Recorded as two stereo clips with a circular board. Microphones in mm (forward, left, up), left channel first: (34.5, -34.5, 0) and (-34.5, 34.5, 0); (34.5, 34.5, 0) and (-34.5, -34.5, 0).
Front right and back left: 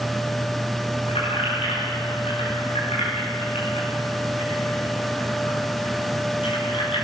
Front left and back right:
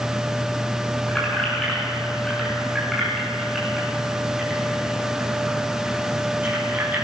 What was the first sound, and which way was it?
Keys jangling, 35° right.